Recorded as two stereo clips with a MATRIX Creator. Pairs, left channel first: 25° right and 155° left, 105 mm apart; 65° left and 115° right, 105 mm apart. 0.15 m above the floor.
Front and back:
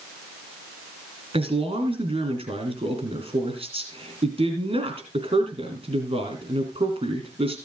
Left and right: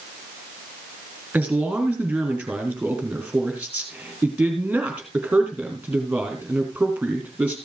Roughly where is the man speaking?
Behind.